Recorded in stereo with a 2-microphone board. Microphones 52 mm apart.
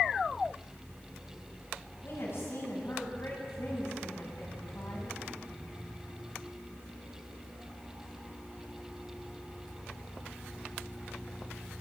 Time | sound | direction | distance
2.0 | a woman speaking | 50° left (ahead or behind) | 7 m